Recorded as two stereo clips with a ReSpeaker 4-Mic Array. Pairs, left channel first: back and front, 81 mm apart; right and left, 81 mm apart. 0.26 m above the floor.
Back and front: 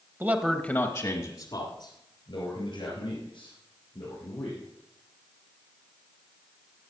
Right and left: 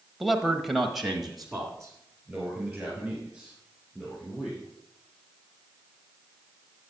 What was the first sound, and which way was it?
A man speaking, straight ahead.